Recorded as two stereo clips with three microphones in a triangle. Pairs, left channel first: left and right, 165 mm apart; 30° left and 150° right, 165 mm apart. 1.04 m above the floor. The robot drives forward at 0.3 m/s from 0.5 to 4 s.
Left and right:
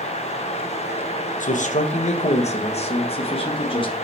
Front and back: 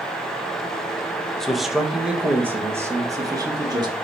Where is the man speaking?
115° left, 0.9 m; by 3.9 s 150° left, 1.4 m.